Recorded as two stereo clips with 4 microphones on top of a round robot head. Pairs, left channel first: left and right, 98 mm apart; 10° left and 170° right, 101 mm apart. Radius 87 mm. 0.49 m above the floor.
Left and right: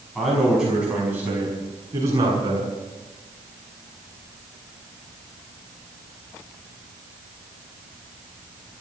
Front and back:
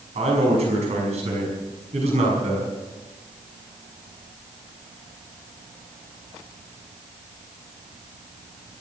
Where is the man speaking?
Straight behind, 6 m; by 2.7 s 145° right, 6.5 m.